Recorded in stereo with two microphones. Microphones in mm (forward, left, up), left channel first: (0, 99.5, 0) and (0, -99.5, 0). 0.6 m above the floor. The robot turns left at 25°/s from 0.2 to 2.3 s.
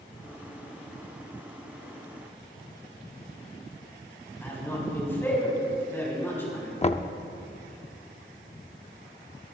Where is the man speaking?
10° left (ahead or behind), 5.5 m.